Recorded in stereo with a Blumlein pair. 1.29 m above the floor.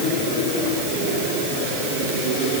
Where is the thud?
I don't hear a thud.